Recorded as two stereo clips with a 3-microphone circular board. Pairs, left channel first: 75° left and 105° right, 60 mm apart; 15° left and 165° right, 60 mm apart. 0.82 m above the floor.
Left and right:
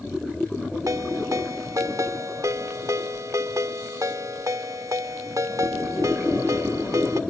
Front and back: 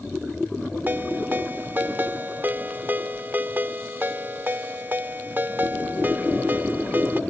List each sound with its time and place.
0.9 s a ringtone: 110° right